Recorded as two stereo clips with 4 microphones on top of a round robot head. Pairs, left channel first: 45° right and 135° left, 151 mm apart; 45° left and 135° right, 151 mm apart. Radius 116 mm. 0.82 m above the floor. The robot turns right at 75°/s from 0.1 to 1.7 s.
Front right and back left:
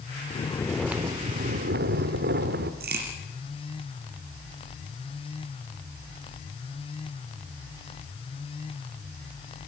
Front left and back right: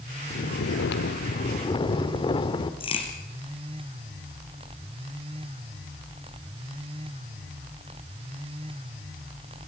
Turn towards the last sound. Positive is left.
turn(degrees=105)